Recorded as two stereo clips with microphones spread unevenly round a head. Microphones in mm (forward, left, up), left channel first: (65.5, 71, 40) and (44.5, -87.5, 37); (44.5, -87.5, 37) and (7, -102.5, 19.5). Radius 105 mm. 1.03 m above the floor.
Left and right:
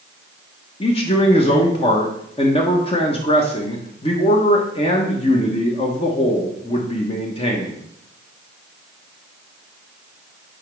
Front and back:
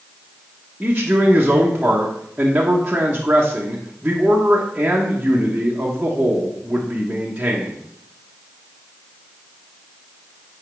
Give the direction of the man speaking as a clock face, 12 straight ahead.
7 o'clock.